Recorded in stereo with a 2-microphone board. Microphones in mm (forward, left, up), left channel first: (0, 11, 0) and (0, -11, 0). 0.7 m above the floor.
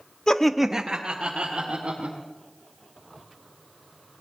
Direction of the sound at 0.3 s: 30° left (ahead or behind).